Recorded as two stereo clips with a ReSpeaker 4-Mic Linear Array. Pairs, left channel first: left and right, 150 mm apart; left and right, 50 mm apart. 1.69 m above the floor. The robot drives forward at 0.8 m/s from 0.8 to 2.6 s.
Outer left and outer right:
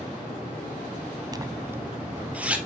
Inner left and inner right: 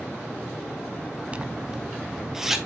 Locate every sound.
1.3 s a zipper: 25° right (ahead or behind), 0.5 m; by 2.6 s 10° right (ahead or behind), 1.5 m